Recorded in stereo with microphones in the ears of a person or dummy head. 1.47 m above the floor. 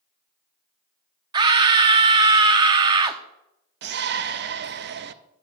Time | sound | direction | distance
1.3 | a scream | 25° right (ahead or behind) | 0.6 m
3.8 | a shout | 55° right (ahead or behind) | 0.5 m